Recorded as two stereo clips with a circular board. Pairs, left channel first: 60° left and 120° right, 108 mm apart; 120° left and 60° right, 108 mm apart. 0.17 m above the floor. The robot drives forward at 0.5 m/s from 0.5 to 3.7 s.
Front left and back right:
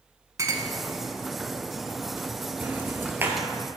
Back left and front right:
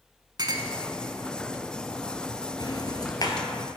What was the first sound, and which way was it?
A clink, 80° right.